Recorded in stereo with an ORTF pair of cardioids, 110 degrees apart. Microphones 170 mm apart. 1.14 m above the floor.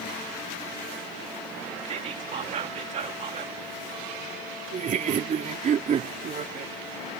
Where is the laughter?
45° right.